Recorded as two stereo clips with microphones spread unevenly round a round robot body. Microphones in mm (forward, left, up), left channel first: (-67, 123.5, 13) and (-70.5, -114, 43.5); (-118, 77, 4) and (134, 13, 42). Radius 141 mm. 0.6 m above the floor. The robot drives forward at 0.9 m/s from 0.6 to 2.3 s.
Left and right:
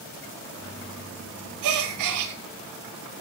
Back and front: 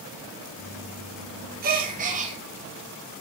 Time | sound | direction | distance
1.6 | a gasp | 75° right | 5.5 m